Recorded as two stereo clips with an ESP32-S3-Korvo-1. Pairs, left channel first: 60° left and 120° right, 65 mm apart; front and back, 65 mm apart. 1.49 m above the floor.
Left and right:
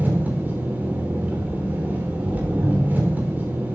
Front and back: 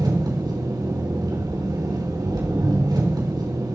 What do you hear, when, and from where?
0.0 s an engine running: straight behind, 5 m